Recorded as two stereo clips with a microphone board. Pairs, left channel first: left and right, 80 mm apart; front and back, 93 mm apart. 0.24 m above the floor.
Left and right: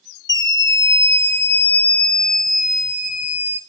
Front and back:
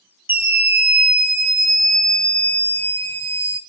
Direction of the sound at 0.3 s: 115° left.